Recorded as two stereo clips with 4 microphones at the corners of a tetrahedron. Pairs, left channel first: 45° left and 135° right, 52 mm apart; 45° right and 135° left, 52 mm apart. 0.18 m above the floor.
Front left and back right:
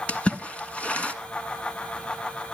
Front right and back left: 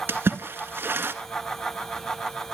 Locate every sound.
0.1 s a splash: 105° left, 1.6 m